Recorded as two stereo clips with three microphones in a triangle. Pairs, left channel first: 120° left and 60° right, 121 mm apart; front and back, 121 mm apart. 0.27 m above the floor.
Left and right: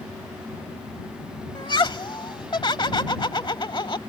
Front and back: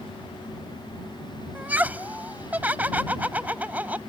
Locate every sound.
1.6 s laughter: 115° left